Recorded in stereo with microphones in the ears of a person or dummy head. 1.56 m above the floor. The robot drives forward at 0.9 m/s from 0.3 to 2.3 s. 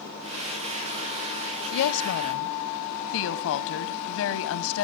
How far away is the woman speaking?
About 1.0 m.